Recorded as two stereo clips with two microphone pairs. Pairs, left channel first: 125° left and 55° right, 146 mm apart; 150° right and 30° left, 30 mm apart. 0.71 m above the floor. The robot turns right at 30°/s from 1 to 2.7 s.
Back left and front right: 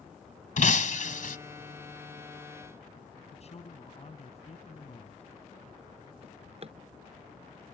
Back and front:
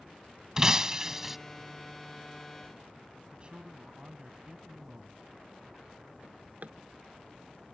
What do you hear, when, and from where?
0.6 s breaking glass: 100° left; by 1.4 s 110° left
3.3 s a man speaking: 85° left
6.2 s a drawer: 10° right